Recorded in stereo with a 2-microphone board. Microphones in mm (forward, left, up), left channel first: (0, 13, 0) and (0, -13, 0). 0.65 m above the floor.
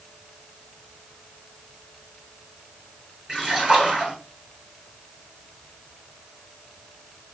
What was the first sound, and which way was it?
A splash, 20° right (ahead or behind).